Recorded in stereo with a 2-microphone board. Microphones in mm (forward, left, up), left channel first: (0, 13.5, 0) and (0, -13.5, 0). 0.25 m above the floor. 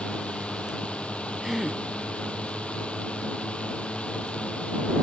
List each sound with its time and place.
0.0 s a drone: 45° left (ahead or behind)
1.4 s a gasp: 15° right (ahead or behind)